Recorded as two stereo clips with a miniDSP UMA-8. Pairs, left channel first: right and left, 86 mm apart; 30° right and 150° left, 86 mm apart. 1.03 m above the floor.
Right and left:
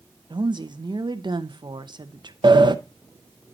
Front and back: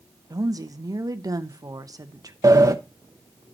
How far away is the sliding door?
About 0.7 m.